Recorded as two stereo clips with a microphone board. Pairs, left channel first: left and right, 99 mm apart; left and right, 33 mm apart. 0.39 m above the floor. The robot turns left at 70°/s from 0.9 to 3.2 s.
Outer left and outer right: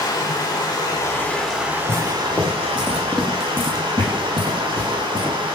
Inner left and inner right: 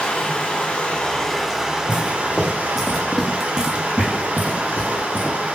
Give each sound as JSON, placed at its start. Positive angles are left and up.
{"t": 0.0, "sound": "running water", "azimuth_deg": 45, "distance_m": 0.9}
{"t": 1.9, "sound": "footsteps", "side_deg": -60, "distance_m": 2.0}